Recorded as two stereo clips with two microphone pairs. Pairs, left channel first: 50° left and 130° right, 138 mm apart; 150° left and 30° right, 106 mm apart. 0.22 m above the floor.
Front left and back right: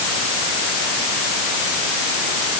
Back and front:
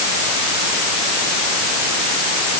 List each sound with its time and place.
Only background noise.